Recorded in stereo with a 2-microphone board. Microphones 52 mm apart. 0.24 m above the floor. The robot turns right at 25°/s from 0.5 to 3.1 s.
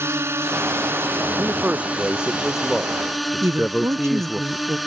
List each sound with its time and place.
0.0 s a drone: 65° right; by 4.9 s straight ahead
1.4 s a man speaking: 35° right; by 4.4 s 5° left
3.4 s a woman speaking: 60° right (ahead or behind)